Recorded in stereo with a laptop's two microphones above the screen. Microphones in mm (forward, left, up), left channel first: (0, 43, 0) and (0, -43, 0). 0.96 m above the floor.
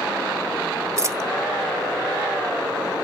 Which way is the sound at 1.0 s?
35° right (ahead or behind).